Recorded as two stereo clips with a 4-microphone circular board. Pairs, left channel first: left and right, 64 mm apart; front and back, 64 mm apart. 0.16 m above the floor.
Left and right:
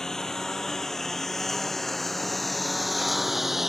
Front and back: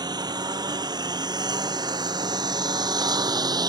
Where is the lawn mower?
170° left; by 3.7 s 175° right.